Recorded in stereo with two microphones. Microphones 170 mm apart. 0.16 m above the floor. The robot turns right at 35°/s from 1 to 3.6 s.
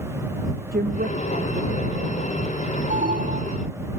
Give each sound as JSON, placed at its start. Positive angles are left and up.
{"t": 0.7, "sound": "a woman speaking", "azimuth_deg": -110}
{"t": 2.9, "sound": "an alarm", "side_deg": -55}